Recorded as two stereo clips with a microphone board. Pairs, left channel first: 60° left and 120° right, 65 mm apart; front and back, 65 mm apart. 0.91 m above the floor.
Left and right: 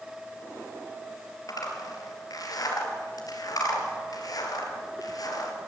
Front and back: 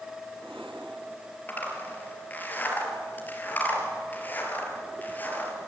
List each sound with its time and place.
1.5 s a zipper: 60° left, 3 m